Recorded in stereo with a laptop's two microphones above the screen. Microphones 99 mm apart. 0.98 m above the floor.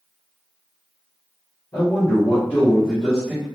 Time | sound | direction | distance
1.7 | a man speaking | 45° left (ahead or behind) | 1.0 m